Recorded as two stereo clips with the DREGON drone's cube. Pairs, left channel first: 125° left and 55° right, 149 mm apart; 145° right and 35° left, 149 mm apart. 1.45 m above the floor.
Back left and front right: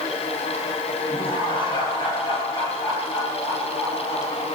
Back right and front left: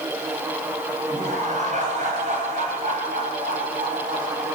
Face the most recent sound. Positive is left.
turn(degrees=55)